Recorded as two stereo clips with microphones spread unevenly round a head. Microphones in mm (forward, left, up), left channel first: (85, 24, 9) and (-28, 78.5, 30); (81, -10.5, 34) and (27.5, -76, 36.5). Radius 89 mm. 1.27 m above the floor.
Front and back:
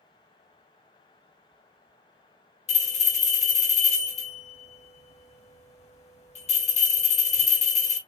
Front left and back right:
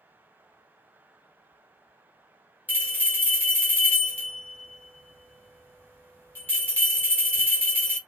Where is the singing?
I don't hear singing.